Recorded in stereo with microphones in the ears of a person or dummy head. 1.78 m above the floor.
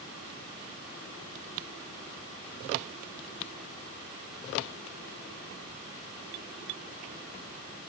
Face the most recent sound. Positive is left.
No sound to turn to.